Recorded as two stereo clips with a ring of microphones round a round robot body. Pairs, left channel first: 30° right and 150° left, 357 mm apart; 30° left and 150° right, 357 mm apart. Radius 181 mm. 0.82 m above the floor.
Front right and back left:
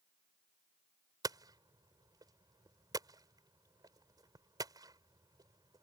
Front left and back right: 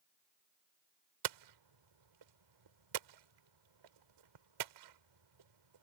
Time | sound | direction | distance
1.2 | hammering | 130° right | ?